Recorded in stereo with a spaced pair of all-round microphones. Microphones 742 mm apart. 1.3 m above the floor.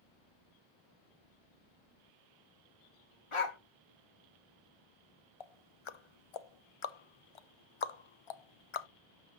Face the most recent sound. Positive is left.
turn(degrees=45)  # may be behind; listen again after turning